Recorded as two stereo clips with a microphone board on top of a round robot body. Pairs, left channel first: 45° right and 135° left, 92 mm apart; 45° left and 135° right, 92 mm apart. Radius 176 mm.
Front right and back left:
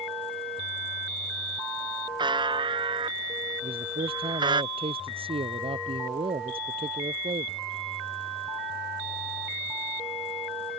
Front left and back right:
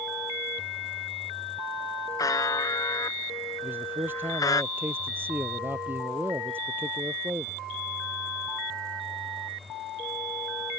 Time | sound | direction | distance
2.2 | a buzzer | 100° left | ?
3.6 | a man speaking | 155° left | ?